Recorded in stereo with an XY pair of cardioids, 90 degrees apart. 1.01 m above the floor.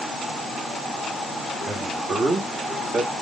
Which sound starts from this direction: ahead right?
A man speaking, at 1.7 s.